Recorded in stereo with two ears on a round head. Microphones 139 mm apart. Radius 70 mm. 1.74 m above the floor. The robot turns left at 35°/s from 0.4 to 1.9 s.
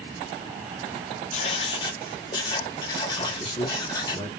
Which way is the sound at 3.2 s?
30° left (ahead or behind).